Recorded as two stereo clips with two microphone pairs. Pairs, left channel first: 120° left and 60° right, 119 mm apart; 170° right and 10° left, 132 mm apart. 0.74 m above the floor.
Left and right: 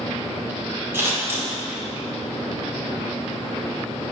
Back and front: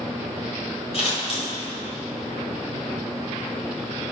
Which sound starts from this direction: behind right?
Scissors, at 0.9 s.